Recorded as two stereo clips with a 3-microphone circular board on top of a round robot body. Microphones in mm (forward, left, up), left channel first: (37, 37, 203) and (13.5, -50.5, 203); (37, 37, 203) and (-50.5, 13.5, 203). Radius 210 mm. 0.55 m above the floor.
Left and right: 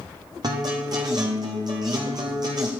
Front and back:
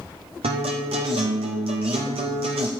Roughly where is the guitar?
Behind right.